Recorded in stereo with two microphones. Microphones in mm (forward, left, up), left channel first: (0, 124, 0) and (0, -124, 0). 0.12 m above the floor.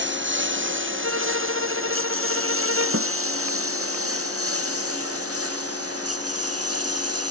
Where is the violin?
60° right (ahead or behind).